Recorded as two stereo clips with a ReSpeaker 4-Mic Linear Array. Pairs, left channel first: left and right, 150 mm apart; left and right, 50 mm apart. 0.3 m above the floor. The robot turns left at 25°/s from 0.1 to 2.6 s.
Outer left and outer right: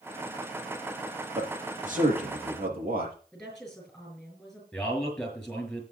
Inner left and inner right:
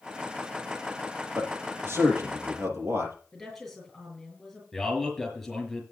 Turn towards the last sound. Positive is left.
turn(degrees=0)  # may be behind; listen again after turning